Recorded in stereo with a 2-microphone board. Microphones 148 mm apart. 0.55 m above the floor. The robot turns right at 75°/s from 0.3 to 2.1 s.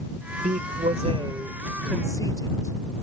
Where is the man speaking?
100° right; by 2.8 s 25° left.